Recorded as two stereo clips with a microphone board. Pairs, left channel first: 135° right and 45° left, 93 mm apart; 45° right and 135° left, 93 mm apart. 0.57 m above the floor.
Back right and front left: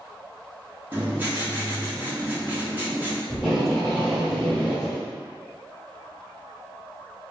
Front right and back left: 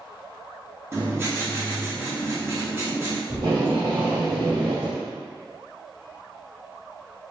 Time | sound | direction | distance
0.9 | writing | 100° left | 0.7 m
3.3 | tape being pulled | 140° left | 1.8 m